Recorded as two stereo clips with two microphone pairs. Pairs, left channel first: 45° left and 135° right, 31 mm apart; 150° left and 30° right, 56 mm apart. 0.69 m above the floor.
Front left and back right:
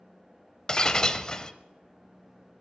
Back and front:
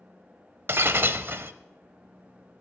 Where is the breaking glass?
10° right, 0.6 m.